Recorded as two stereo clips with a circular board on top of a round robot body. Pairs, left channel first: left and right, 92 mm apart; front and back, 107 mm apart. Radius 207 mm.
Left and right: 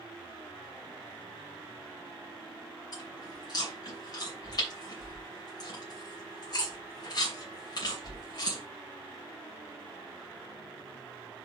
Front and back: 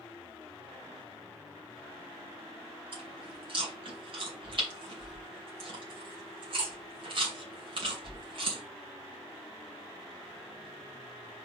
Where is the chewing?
140° left, 2.5 m.